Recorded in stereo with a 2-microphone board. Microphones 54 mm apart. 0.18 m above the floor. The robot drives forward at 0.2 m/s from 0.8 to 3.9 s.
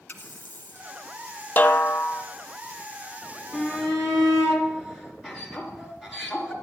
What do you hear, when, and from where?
0.1 s a running tap: 35° left (ahead or behind), 1.4 m
1.6 s a snare drum: 30° left (ahead or behind), 0.8 m; by 2.2 s 35° left (ahead or behind), 0.7 m
3.5 s a shout: 10° right (ahead or behind), 3.5 m